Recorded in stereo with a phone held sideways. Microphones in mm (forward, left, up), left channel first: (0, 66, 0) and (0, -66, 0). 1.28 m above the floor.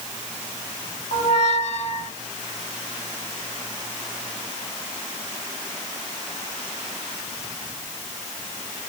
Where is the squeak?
55° left (ahead or behind), 0.9 m.